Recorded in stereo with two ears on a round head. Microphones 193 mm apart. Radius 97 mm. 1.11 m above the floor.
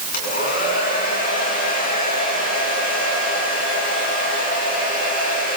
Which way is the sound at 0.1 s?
45° left (ahead or behind).